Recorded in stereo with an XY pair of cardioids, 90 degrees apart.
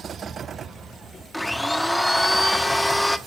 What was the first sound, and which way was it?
A blender, 10° left.